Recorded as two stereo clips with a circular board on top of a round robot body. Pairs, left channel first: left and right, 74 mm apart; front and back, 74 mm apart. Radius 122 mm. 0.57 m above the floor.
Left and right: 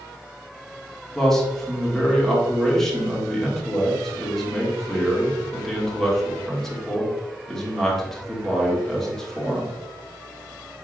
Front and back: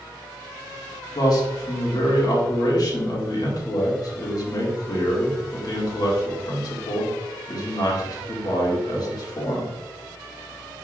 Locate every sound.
1.1 s a man speaking: 5° left, 2.5 m